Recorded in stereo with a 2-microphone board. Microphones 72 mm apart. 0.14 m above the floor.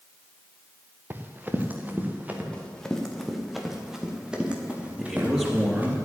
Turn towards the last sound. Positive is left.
turn(degrees=-15)  # may be behind; listen again after turning